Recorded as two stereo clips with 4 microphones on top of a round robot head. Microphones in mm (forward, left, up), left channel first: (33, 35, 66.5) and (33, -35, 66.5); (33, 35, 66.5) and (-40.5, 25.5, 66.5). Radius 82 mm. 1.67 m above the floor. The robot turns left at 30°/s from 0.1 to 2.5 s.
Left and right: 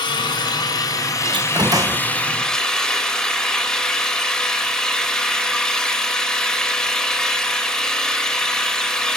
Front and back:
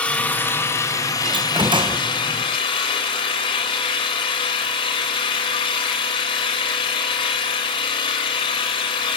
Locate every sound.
0.0 s an engine running: 80° left, 4.5 m; by 9.2 s 10° left, 4.5 m
1.2 s a door slam: 130° right, 0.8 m; by 2.0 s 155° right, 0.8 m